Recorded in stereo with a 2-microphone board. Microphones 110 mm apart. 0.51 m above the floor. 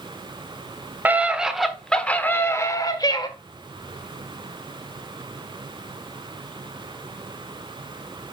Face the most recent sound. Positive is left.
turn(degrees=40)  # may be behind; listen again after turning